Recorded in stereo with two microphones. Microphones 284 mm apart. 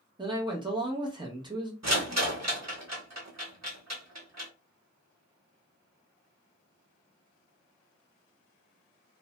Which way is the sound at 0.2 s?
15° right (ahead or behind).